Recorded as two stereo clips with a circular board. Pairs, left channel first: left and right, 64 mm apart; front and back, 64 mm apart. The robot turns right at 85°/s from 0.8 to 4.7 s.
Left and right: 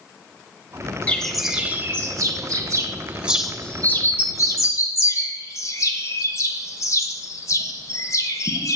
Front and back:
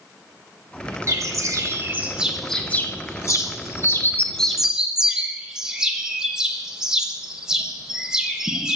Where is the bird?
155° left, 0.9 m; by 8.8 s 105° left, 0.9 m.